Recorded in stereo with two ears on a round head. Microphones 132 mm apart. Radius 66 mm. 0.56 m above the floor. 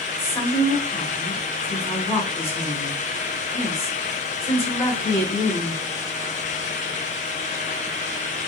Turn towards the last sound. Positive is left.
turn(degrees=20)  # may be behind; listen again after turning